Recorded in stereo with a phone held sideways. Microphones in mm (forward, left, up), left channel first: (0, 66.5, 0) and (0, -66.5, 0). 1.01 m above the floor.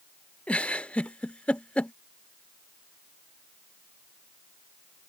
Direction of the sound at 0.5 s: 10° left (ahead or behind).